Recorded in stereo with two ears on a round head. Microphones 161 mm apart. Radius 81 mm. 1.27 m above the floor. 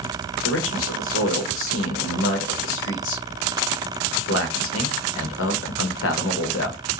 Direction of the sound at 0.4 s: 85° left.